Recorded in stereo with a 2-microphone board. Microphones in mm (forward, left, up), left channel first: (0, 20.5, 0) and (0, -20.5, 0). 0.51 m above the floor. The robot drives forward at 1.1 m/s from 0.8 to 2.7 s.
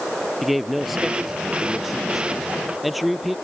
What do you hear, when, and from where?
0.4 s a man speaking: 5° right (ahead or behind); by 3.4 s centre (ahead or behind)